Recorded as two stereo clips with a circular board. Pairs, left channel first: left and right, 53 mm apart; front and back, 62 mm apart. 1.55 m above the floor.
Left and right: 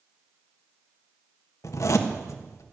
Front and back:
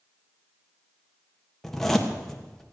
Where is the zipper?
85° left, 1.4 m.